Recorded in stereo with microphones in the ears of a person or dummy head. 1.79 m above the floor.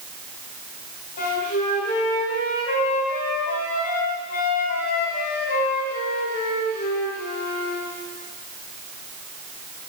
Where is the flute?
45° left (ahead or behind), 2.5 m.